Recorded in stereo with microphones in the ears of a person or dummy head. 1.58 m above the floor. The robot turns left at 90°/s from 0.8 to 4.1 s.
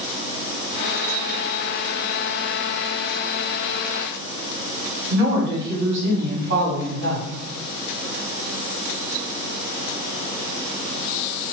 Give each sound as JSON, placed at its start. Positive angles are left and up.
{"t": 5.1, "sound": "a woman speaking", "side_deg": -65, "distance_m": 1.4}